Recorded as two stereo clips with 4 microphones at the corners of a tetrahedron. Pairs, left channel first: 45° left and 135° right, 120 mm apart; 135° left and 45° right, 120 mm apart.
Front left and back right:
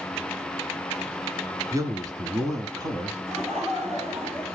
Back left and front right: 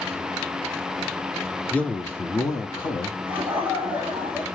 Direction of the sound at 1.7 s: 155° right.